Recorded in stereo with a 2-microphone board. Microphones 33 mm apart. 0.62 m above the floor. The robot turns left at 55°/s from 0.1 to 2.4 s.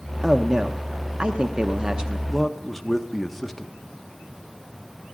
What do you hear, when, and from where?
0.2 s a man speaking: 10° right (ahead or behind), 0.7 m; by 2.2 s 20° right (ahead or behind), 0.7 m
2.3 s a man speaking: 5° right (ahead or behind), 0.8 m; by 3.7 s centre (ahead or behind), 0.8 m